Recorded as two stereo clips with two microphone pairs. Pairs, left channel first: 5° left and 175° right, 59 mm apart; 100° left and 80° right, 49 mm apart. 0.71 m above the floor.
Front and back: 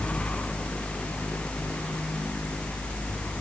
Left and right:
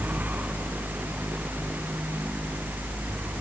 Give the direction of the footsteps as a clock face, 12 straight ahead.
I don't hear footsteps.